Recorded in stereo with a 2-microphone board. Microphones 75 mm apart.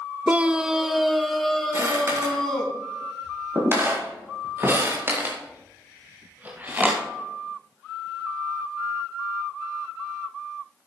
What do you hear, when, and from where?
0.3 s a scream: 20° right (ahead or behind), 0.7 m; by 2.7 s 10° left (ahead or behind), 3.5 m
1.7 s footsteps: 40° right (ahead or behind), 7.5 m; by 7.1 s 20° right (ahead or behind), 4 m